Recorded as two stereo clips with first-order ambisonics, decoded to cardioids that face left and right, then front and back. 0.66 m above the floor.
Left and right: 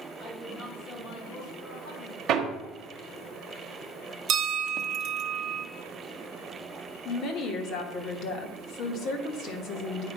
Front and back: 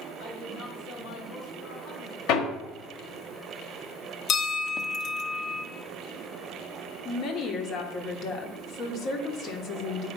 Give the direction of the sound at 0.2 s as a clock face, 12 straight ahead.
11 o'clock.